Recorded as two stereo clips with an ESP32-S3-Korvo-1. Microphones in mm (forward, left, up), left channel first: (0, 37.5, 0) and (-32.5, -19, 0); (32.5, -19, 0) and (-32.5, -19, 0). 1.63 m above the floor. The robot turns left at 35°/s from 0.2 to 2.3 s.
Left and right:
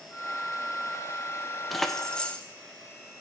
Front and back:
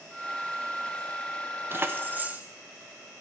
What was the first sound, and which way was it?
Keys jangling, 150° left.